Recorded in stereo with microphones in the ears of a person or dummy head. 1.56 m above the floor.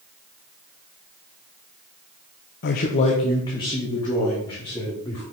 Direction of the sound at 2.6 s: 40° left (ahead or behind).